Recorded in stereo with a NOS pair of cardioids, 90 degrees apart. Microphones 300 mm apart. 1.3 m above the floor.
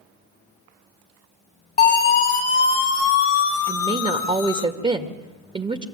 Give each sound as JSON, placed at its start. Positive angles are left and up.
{"t": 1.8, "sound": "a siren", "azimuth_deg": 25, "distance_m": 2.5}
{"t": 3.7, "sound": "a woman speaking", "azimuth_deg": -15, "distance_m": 2.0}